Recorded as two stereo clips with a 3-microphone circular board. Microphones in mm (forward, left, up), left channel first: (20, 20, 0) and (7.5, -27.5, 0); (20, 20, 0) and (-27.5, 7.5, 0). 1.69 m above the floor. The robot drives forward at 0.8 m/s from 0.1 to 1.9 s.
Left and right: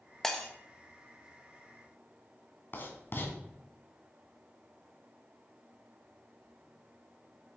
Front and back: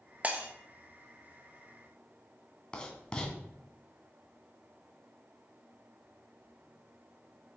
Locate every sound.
0.2 s breaking glass: 155° left, 1.2 m; by 0.5 s 160° left, 1.3 m
2.7 s writing: 80° left, 2 m